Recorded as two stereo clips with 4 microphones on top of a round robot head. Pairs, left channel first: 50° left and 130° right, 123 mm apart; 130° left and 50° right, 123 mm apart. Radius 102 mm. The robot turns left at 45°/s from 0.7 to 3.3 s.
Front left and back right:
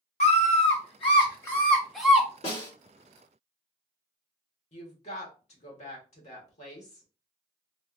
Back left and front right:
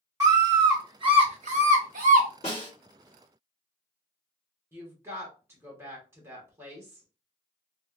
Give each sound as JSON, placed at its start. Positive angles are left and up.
{"t": 0.2, "sound": "a scream", "azimuth_deg": 15, "distance_m": 0.8}
{"t": 2.4, "sound": "a snare drum", "azimuth_deg": 85, "distance_m": 2.5}
{"t": 4.7, "sound": "a woman speaking", "azimuth_deg": 20, "distance_m": 1.6}